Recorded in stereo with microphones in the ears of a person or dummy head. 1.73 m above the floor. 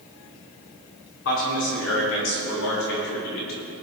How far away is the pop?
I don't hear a pop.